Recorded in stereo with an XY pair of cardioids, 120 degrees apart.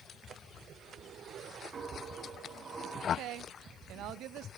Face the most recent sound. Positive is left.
turn(degrees=-70)